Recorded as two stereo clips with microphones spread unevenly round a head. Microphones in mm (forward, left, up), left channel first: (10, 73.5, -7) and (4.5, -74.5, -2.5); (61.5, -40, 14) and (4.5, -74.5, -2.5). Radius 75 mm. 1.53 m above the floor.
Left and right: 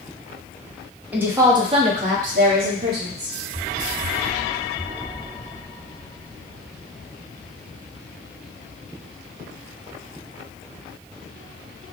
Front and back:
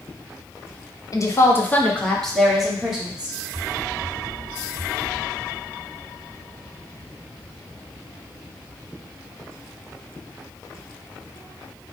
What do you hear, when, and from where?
1.1 s a woman speaking: 10° right, 1.1 m; by 3.4 s 75° right, 1.9 m